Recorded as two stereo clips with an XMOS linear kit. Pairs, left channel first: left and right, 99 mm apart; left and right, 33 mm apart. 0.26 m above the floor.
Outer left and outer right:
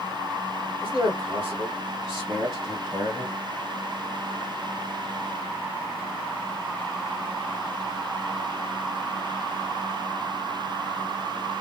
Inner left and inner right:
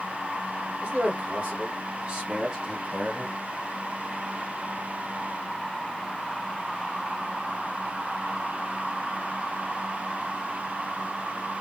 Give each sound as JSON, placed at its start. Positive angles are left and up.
{"t": 0.8, "sound": "a man speaking", "side_deg": -60, "distance_m": 2.0}